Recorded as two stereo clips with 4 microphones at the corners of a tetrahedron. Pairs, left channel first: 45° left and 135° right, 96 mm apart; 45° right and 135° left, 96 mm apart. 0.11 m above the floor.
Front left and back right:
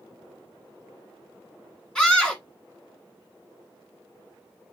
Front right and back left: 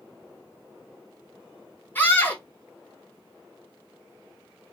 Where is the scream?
25° right, 1.1 m.